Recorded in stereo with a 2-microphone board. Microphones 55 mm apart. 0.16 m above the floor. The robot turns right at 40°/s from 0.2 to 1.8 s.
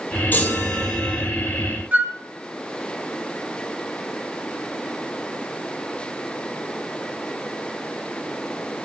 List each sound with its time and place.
0.3 s a chime: 145° left, 1.2 m; by 1.3 s 175° right, 1.2 m
1.9 s a flute: 35° right (ahead or behind), 0.7 m